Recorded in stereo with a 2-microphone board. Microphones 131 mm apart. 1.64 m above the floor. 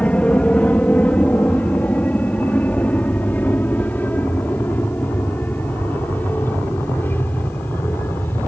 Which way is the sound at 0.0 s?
10° left (ahead or behind).